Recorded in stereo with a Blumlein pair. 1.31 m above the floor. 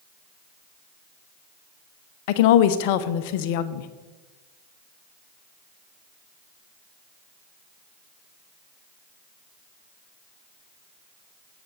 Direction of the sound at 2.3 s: 45° left.